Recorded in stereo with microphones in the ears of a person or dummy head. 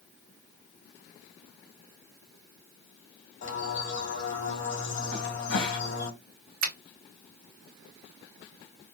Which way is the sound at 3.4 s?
75° left (ahead or behind).